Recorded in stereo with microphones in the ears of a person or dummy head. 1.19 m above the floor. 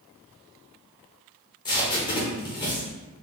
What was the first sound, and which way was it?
Tape being pulled, 20° left (ahead or behind).